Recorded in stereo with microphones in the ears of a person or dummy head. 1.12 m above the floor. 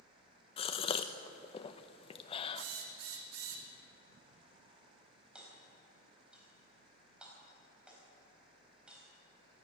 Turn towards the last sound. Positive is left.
turn(degrees=-5)  # may be behind; listen again after turning